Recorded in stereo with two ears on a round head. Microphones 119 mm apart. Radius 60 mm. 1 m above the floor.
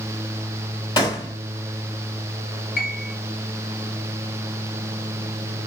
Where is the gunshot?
30° left (ahead or behind), 2 m.